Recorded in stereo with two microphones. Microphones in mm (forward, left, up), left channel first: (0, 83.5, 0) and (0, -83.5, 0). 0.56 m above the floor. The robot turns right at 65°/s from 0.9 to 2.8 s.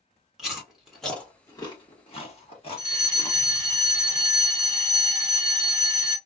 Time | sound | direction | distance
0.4 | chewing | 5° right (ahead or behind) | 1.3 m
2.8 | a fire alarm | 20° left (ahead or behind) | 1.5 m